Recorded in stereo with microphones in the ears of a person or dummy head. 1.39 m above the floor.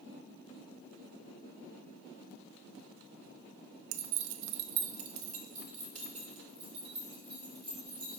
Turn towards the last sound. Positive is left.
turn(degrees=-25)  # may be behind; listen again after turning